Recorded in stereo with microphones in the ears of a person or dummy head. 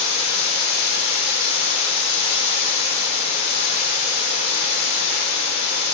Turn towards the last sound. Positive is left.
turn(degrees=80)